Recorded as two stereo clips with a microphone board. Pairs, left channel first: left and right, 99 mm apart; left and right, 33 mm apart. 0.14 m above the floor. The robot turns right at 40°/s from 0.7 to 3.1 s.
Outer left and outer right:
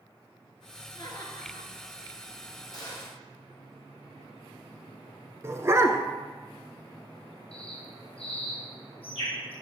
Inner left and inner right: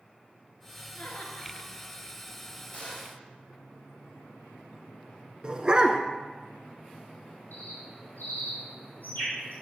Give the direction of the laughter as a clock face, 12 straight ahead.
8 o'clock.